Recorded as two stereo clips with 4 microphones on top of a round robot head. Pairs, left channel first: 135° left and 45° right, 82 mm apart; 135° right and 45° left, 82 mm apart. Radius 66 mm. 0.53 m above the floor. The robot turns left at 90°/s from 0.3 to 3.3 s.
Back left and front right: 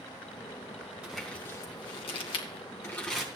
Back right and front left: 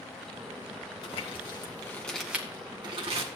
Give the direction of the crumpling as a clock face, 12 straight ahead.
4 o'clock.